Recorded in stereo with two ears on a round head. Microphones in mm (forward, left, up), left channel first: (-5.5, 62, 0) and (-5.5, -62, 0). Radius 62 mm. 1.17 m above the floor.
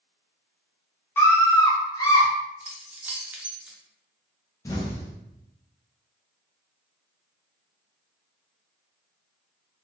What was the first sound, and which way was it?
A scream, 15° left (ahead or behind).